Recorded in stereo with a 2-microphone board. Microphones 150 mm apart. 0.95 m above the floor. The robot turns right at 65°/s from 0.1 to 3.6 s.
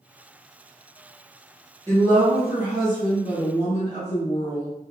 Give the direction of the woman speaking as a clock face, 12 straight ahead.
12 o'clock.